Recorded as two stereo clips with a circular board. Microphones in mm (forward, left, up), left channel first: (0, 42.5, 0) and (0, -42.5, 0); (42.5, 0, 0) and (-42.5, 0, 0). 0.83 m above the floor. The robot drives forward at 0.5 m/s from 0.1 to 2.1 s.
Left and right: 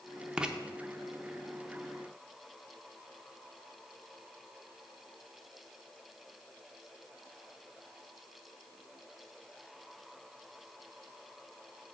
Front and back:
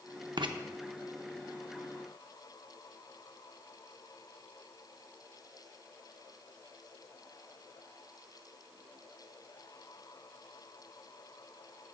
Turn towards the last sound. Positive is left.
turn(degrees=-175)